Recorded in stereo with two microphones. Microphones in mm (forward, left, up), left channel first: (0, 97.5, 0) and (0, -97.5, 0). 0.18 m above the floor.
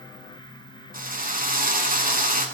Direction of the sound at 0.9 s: 45° right (ahead or behind).